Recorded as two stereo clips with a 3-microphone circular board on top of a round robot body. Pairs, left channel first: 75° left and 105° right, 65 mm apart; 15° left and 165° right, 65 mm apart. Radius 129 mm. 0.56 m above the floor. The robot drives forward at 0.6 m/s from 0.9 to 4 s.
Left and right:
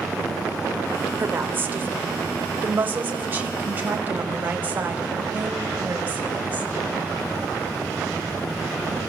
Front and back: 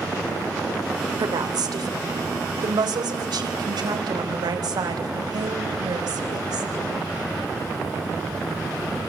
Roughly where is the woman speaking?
Behind.